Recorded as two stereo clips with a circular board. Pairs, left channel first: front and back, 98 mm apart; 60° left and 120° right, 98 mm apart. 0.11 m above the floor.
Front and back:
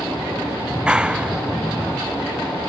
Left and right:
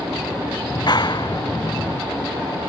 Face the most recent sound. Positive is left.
turn(degrees=100)